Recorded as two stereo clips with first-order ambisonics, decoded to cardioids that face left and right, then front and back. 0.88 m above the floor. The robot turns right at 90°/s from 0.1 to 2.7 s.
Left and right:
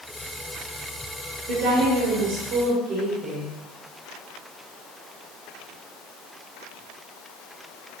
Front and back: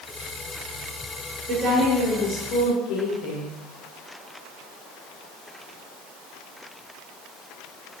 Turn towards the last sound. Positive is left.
turn(degrees=-20)